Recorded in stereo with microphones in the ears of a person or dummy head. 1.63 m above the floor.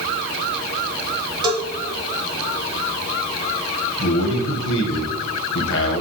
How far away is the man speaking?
About 1.5 m.